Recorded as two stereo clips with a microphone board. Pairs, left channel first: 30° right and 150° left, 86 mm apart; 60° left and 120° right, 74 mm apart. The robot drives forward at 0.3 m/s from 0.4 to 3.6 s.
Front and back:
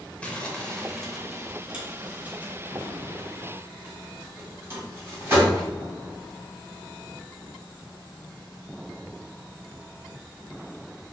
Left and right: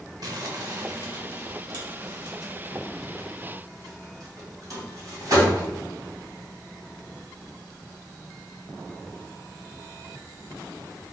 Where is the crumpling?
105° right, 0.7 m; by 5.7 s 150° right, 1.3 m.